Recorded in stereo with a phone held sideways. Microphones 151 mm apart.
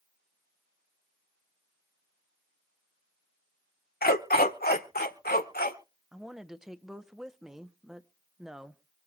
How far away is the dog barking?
About 1.2 m.